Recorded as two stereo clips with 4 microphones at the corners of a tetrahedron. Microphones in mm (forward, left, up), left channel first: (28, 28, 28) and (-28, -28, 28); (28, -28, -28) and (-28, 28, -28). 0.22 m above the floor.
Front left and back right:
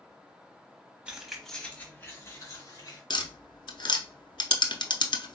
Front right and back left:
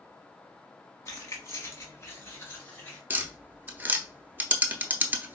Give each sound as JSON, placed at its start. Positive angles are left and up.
{"t": 1.1, "sound": "keys jangling", "azimuth_deg": -65, "distance_m": 1.0}
{"t": 3.1, "sound": "tapping", "azimuth_deg": 65, "distance_m": 0.5}